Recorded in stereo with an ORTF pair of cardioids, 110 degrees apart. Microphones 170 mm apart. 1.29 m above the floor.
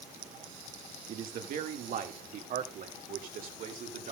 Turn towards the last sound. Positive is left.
turn(degrees=-55)